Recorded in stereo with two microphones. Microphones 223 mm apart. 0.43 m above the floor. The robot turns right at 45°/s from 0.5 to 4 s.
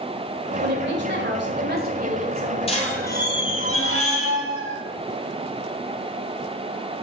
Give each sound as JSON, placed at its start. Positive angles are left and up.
{"t": 0.6, "sound": "a woman speaking", "azimuth_deg": -115, "distance_m": 1.9}
{"t": 2.7, "sound": "a squeak", "azimuth_deg": 25, "distance_m": 2.5}